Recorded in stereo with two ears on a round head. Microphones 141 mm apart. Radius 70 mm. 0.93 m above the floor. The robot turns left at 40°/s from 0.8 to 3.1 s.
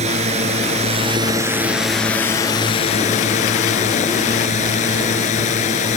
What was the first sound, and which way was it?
A drone, 135° right.